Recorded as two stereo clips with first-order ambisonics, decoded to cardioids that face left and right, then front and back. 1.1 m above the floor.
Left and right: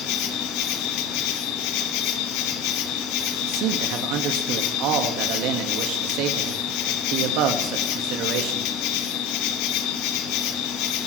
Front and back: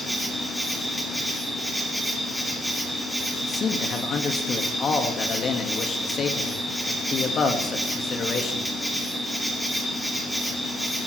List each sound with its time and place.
0.0 s an insect: 95° left, 1.9 m
3.4 s a man speaking: 65° right, 1.7 m